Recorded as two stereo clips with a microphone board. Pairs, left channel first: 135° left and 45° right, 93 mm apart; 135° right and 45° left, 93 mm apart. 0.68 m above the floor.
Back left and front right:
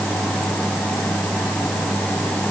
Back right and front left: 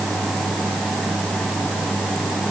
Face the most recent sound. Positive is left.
No sound to turn to.